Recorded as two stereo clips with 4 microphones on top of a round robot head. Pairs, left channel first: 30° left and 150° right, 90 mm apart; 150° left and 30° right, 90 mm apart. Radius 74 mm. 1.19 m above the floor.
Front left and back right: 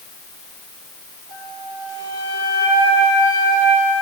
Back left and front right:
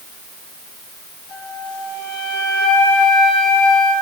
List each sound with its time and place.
1.3 s a flute: 170° right, 8.5 m